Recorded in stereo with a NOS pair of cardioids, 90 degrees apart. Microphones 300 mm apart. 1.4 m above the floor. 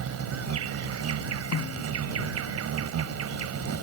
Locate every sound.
0.0 s an insect: 60° right
1.5 s a snare drum: 55° left